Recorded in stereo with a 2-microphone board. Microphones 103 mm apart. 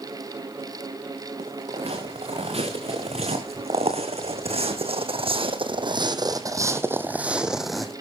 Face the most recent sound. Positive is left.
turn(degrees=5)  # may be behind; listen again after turning